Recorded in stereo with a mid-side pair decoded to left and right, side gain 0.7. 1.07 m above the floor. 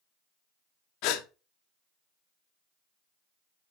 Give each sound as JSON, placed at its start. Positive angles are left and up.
{"t": 1.0, "sound": "a gasp", "azimuth_deg": 70, "distance_m": 1.2}